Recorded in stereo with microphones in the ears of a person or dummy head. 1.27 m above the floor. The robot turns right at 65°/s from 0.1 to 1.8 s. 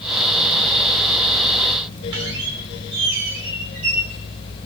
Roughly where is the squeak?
Right.